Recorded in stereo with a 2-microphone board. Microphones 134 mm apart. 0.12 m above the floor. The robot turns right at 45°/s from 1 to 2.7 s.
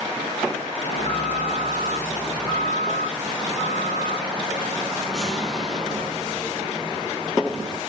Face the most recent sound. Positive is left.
turn(degrees=-175)